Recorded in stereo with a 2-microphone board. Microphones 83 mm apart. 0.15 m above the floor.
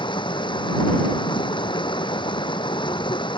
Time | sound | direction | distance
0.0 | running water | 75° left (ahead or behind) | ?